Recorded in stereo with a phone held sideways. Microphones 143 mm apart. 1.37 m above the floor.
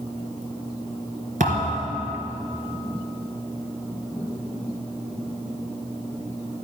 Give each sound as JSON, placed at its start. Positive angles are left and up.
{"t": 1.4, "sound": "a thud", "side_deg": -65, "distance_m": 3.0}